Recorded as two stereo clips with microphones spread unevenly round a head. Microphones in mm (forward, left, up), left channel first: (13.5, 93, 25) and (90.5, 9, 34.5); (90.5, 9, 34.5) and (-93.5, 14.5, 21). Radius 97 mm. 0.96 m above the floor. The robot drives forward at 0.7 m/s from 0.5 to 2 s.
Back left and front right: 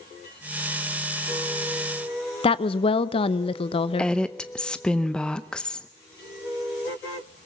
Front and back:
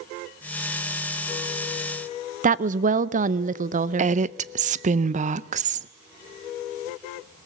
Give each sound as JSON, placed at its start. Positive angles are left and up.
{"t": 2.4, "sound": "a woman speaking", "azimuth_deg": 145, "distance_m": 0.7}
{"t": 4.0, "sound": "a woman speaking", "azimuth_deg": -150, "distance_m": 0.6}